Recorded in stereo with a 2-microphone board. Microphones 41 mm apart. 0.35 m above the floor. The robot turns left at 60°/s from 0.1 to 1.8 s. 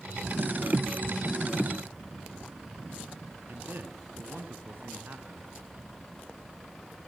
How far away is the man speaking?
About 4.5 m.